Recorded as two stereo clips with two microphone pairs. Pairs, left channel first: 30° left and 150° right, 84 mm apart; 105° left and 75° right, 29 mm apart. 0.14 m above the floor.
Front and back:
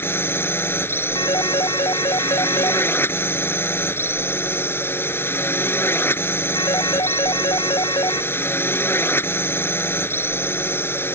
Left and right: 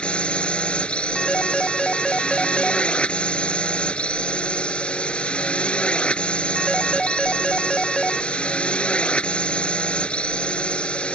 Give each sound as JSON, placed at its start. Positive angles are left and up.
{"t": 0.0, "sound": "a drone", "azimuth_deg": 80}
{"t": 1.1, "sound": "a phone ringing", "azimuth_deg": 30}